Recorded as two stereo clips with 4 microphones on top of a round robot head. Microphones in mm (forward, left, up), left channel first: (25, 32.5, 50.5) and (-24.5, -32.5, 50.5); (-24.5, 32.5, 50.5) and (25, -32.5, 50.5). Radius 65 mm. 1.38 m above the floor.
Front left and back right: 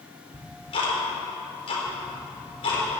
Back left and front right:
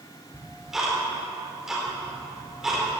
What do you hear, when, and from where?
0.3 s ticking: 30° left, 4 m